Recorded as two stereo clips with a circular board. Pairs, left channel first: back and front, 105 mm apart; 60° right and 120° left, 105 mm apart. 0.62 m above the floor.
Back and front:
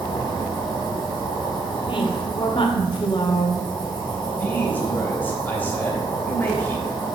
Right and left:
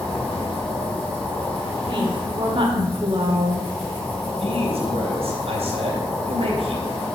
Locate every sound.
0.0 s an insect: 135° right, 4.5 m
1.9 s a woman speaking: 150° left, 1.9 m
4.3 s a man speaking: 110° left, 3 m